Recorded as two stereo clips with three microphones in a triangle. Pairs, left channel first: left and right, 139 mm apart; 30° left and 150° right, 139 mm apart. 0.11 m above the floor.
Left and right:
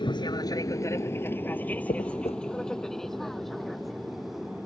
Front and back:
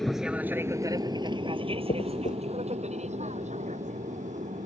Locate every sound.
0.0 s an aircraft: 115° left; by 4.7 s 175° right
1.9 s a dropped coin: 50° left